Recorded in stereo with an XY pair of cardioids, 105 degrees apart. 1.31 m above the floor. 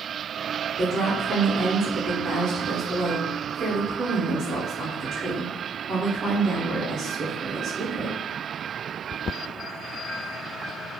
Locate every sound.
0.8 s a woman speaking: 55° right, 0.6 m